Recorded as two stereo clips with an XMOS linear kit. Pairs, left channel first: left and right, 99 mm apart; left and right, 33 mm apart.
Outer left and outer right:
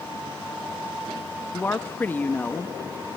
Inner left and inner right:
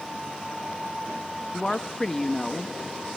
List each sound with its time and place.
1.5 s a woman speaking: 20° left (ahead or behind), 1.0 m